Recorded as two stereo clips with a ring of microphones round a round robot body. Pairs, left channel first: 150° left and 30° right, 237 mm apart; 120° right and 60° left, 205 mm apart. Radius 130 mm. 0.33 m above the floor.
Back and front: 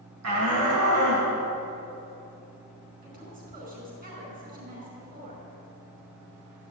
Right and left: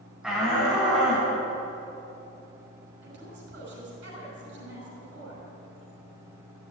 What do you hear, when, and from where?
0.2 s a shout: 25° right, 3 m; by 1.3 s 30° right, 4 m
3.0 s a woman speaking: 25° left, 5 m